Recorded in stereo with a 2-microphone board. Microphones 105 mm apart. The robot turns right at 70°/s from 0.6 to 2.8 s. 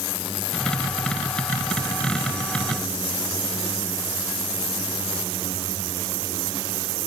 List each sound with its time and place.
Only background noise.